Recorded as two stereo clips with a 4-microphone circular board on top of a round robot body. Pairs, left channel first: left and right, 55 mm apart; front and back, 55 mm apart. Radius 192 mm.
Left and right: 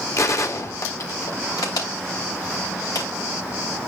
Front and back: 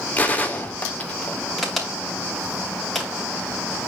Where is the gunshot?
65° left, 1.8 m.